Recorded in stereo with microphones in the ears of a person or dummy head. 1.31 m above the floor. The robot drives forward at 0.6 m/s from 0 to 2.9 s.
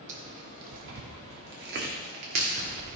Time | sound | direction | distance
0.1 | tearing paper | 40° right (ahead or behind) | 1.4 m